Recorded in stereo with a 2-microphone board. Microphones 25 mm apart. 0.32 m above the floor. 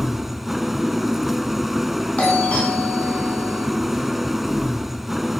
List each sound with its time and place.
0.0 s an engine running: 5° right (ahead or behind), 0.7 m
2.2 s a doorbell: 55° left (ahead or behind), 4 m